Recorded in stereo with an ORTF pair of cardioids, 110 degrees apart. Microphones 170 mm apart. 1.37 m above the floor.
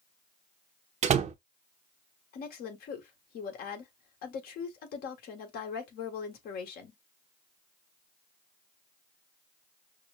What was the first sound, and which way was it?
A door slam, 45° right.